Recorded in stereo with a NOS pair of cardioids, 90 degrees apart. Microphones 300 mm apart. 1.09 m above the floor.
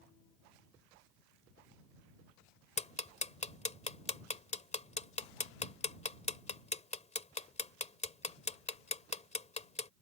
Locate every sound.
2.8 s ticking: 20° left